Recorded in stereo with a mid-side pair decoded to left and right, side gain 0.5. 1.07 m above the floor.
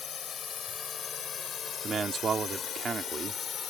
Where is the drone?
45° left; by 3.7 s 50° left.